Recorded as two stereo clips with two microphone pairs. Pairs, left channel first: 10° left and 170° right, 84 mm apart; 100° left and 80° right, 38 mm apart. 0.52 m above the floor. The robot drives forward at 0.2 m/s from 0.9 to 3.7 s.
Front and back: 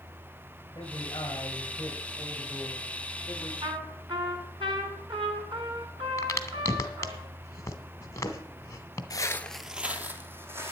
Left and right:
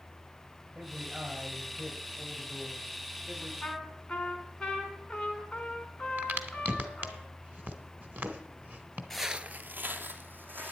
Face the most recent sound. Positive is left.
turn(degrees=-110)